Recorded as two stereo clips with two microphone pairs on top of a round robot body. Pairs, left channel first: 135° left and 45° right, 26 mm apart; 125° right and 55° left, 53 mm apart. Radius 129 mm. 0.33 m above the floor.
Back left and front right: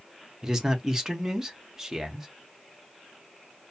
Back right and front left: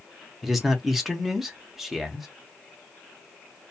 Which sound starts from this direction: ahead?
A man speaking, at 0.4 s.